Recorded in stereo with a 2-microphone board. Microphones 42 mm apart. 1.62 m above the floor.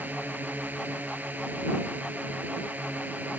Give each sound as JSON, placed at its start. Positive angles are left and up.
{"t": 0.0, "sound": "a drone", "side_deg": -45}